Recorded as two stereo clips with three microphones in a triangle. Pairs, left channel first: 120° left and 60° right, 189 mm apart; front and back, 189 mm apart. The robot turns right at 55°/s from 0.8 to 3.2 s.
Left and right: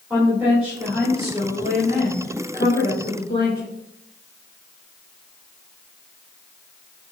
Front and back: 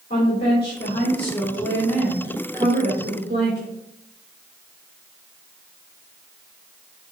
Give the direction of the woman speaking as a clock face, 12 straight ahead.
11 o'clock.